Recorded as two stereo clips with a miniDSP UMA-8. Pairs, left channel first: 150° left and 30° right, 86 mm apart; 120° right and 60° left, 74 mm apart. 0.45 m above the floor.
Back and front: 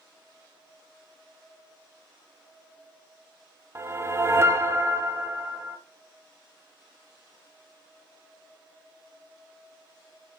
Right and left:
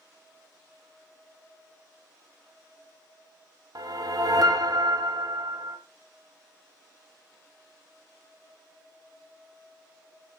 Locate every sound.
3.8 s a whoosh: 30° left, 0.9 m